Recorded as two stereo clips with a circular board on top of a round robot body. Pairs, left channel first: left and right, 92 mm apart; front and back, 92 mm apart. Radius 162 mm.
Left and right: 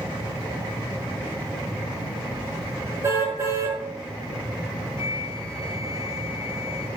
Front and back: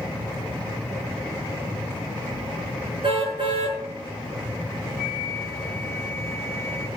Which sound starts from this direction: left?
A flute, at 5.0 s.